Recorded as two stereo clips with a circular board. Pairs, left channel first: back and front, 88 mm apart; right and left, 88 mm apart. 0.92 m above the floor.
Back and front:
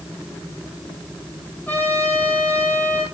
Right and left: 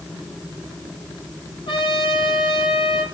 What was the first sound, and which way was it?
A trumpet, 110° right.